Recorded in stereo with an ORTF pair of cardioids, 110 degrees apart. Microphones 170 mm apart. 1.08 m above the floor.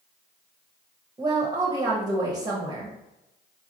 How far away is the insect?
I don't hear an insect.